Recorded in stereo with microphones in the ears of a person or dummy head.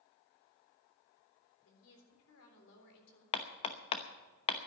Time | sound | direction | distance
1.6 | a woman speaking | 85° left | 3.5 m
3.3 | hammering | 30° left (ahead or behind) | 0.8 m